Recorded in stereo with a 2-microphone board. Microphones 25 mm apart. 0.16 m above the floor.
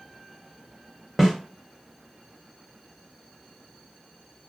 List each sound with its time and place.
1.2 s a snare drum: 10° right (ahead or behind), 1.2 m